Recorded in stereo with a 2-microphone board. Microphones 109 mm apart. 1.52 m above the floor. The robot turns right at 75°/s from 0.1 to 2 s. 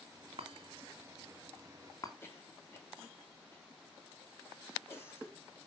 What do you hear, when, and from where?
0.4 s a chime: 60° right (ahead or behind), 2.5 m; by 2.1 s 35° left (ahead or behind), 2.5 m
2.2 s a cough: 25° left (ahead or behind), 3.5 m